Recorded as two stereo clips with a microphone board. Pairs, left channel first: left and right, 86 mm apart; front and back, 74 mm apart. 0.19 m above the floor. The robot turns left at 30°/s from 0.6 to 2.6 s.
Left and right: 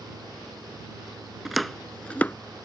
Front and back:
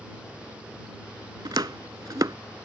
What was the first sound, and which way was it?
Chopping, 175° right.